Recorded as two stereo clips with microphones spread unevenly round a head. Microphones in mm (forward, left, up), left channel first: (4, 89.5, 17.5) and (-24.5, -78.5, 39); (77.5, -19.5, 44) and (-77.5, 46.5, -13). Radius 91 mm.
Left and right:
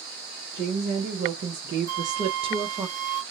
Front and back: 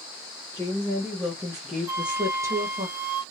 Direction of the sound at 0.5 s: 105° right.